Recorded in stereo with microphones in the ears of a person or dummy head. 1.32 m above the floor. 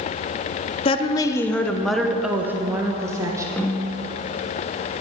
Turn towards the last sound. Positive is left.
turn(degrees=10)  # may be behind; listen again after turning